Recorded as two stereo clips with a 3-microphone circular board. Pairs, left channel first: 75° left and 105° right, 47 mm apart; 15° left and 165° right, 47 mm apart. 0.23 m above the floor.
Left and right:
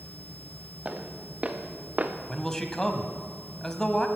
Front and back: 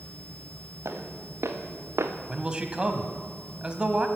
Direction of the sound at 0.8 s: 170° right.